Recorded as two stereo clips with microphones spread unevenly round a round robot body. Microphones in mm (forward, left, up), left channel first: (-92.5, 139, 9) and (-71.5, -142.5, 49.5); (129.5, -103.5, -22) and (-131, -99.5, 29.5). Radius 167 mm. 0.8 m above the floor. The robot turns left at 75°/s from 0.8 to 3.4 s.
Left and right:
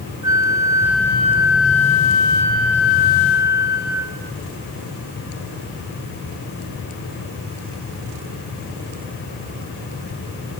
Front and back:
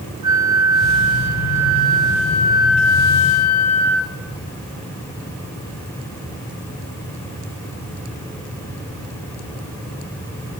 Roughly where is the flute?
Behind.